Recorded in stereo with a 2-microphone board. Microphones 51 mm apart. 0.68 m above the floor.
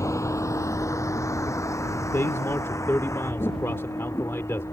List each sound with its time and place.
0.0 s a vehicle: 90° left; by 4.7 s 75° left (ahead or behind)
2.0 s a man speaking: 60° left (ahead or behind)